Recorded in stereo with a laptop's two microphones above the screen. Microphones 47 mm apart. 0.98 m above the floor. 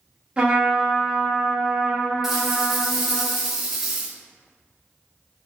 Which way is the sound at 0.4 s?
25° right (ahead or behind).